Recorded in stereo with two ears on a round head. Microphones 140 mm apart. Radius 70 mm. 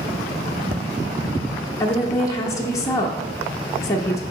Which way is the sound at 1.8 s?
20° left (ahead or behind).